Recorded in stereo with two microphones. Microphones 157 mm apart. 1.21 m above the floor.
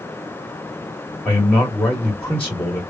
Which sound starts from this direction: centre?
A man speaking, at 1.2 s.